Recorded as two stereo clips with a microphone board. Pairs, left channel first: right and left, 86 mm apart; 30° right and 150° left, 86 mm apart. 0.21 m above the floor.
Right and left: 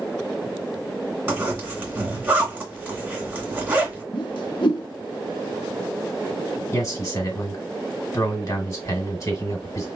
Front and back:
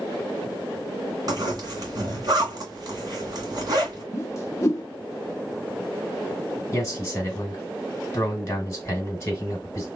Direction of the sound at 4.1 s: 80° right.